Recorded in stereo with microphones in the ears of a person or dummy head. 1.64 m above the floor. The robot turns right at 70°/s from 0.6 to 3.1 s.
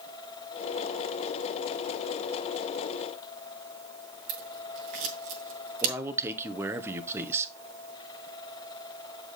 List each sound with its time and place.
4.3 s scissors: 50° right (ahead or behind), 2.5 m
5.8 s a man speaking: 5° right (ahead or behind), 1.1 m